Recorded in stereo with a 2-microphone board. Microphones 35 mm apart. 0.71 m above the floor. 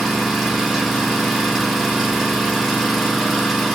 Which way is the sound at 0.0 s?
5° right (ahead or behind).